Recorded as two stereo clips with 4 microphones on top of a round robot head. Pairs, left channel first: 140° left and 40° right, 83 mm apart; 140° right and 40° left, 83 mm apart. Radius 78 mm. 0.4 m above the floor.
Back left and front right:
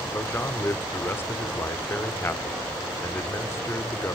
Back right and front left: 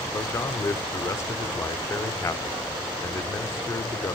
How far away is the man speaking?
About 1.0 m.